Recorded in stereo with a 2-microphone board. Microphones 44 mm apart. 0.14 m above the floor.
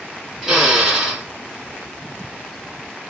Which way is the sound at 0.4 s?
10° right (ahead or behind).